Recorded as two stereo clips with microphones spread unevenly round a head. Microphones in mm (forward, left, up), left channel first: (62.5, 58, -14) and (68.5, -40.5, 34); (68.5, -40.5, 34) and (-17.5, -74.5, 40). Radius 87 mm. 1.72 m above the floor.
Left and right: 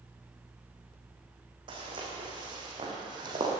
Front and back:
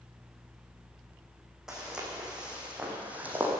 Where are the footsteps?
80° right, 5 m; by 3.5 s 95° right, 3.5 m.